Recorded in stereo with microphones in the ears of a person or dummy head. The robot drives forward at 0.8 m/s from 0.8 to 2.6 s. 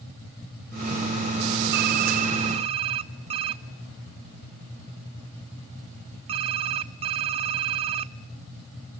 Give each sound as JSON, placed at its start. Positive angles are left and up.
{"t": 1.7, "sound": "typing on a keyboard", "side_deg": -55, "distance_m": 0.8}